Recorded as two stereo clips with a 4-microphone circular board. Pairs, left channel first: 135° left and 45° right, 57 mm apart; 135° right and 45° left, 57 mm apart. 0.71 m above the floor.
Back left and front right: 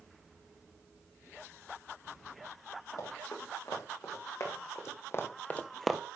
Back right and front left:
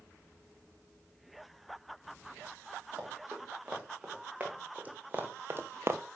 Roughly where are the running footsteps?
Behind left.